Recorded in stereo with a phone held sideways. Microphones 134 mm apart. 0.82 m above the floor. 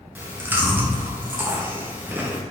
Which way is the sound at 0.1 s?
15° right (ahead or behind).